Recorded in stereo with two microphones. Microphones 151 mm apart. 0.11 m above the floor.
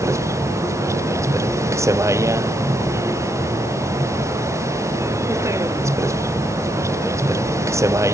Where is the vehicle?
20° right (ahead or behind).